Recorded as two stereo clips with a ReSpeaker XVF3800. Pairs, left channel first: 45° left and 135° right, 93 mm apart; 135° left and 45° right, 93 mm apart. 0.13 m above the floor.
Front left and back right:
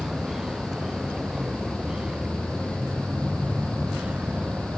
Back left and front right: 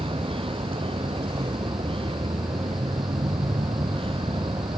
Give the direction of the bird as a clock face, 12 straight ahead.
No bird in this recording.